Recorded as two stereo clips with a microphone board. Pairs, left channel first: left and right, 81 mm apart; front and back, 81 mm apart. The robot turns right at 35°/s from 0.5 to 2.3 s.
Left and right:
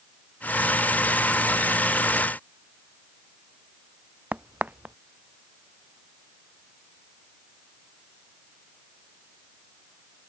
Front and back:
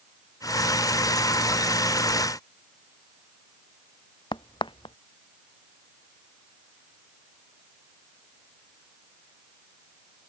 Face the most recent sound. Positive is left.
turn(degrees=-15)